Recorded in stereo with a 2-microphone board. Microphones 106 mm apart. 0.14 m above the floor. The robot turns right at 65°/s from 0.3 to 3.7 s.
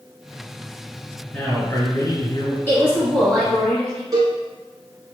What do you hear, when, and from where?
1.3 s a man speaking: 20° left, 1.7 m; by 2.6 s 100° left, 1.7 m
2.7 s a woman speaking: 20° left (ahead or behind), 1.4 m; by 4.0 s 5° left (ahead or behind), 1.4 m
4.1 s a cowbell: 40° right (ahead or behind), 0.9 m